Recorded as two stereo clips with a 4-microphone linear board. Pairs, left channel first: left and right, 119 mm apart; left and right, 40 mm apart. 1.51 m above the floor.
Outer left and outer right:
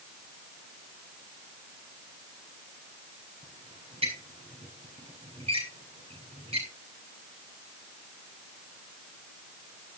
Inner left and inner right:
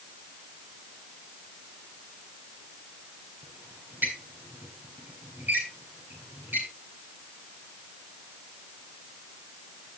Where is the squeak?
60° right (ahead or behind), 8.5 m.